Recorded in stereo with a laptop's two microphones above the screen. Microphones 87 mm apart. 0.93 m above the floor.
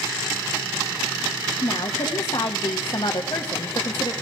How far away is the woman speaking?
About 1.4 m.